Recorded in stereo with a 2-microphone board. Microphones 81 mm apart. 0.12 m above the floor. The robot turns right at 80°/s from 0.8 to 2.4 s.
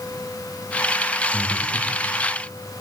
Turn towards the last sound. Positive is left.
turn(degrees=105)